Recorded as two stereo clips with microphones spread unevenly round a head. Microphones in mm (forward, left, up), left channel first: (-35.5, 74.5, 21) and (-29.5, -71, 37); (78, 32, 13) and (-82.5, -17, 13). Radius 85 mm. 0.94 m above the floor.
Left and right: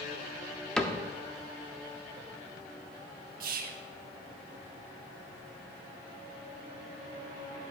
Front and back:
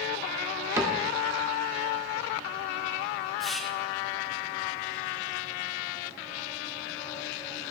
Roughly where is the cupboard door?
Behind left.